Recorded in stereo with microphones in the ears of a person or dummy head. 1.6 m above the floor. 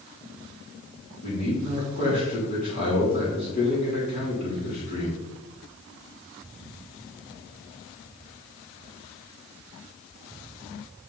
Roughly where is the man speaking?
Left.